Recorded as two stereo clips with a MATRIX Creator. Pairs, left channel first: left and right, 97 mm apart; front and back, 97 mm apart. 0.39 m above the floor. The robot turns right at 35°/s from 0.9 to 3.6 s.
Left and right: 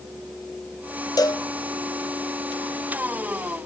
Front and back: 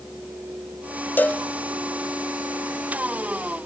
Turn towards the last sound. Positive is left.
turn(degrees=150)